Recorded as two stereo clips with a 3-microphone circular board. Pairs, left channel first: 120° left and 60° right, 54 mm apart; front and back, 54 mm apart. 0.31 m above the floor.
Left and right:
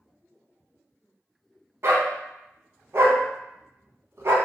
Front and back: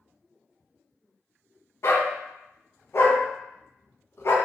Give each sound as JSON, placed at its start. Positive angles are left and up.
{"t": 1.8, "sound": "a dog barking", "azimuth_deg": -30, "distance_m": 0.6}